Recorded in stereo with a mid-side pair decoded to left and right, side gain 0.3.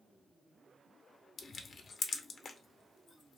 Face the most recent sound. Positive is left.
turn(degrees=65)